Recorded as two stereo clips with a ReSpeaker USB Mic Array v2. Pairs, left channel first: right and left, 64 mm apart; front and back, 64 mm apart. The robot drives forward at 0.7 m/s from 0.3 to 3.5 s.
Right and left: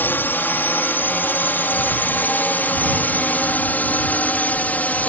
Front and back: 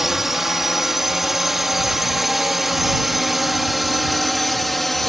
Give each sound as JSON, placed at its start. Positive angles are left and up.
{"t": 0.0, "sound": "a drone", "azimuth_deg": -100}